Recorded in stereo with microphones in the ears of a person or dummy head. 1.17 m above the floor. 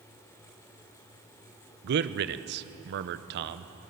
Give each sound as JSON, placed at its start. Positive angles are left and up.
{"t": 1.8, "sound": "a man speaking", "side_deg": -50, "distance_m": 0.6}